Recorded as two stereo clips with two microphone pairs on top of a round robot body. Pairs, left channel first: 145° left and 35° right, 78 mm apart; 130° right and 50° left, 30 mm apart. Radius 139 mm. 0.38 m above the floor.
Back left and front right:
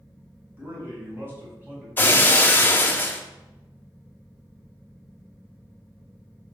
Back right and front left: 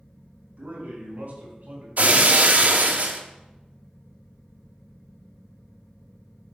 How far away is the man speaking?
About 4.5 m.